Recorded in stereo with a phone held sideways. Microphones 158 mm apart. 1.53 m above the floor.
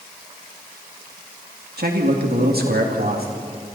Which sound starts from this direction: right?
A man speaking, at 1.8 s.